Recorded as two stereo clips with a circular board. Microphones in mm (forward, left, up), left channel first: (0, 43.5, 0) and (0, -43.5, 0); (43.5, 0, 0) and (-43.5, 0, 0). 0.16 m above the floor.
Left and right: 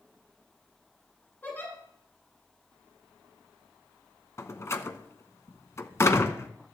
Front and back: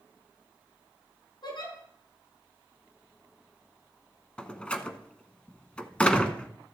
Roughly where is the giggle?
Ahead.